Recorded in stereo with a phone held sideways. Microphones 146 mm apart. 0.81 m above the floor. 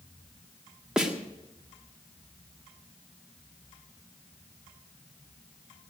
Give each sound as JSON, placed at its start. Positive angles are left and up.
{"t": 1.0, "sound": "a snare drum", "side_deg": -5, "distance_m": 1.7}